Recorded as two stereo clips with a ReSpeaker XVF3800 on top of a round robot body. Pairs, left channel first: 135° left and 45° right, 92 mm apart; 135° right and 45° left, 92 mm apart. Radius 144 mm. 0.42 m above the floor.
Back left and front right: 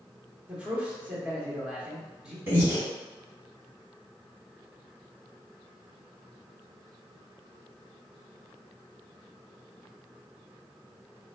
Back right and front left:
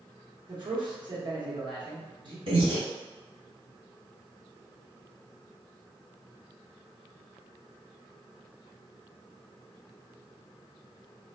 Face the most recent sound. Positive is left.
turn(degrees=20)